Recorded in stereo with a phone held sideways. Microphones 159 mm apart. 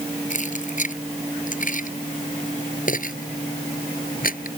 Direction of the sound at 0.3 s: 50° left (ahead or behind).